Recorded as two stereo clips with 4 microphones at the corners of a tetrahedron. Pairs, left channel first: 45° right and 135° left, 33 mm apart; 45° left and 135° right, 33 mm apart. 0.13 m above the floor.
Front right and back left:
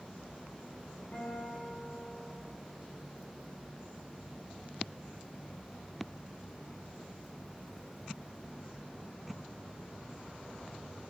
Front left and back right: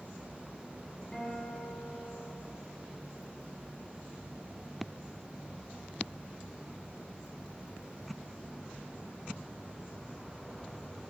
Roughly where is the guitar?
Ahead.